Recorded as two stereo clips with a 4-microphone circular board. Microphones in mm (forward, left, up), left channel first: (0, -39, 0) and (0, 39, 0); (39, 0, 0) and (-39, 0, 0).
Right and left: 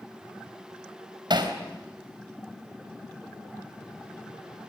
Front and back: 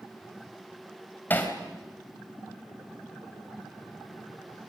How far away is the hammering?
About 3.5 m.